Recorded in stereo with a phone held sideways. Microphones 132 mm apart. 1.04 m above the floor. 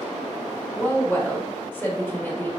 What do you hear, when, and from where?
0.7 s a woman speaking: 15° left (ahead or behind), 1.3 m